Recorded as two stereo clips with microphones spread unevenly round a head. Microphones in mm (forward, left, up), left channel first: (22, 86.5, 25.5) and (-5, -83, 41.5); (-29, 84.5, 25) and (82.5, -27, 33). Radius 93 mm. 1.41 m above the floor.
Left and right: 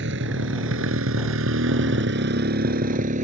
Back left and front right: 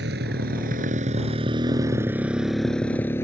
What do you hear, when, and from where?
0.0 s a motorcycle: 80° right; by 3.2 s 150° right